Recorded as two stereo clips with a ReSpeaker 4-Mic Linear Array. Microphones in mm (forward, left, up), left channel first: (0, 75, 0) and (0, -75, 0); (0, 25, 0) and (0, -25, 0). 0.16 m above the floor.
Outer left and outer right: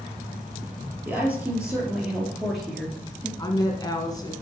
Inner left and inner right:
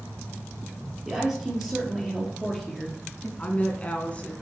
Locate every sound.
1.1 s a woman speaking: 10° right (ahead or behind), 4 m; by 3.3 s 10° left (ahead or behind), 2.5 m
3.4 s a woman speaking: 25° left (ahead or behind), 1.7 m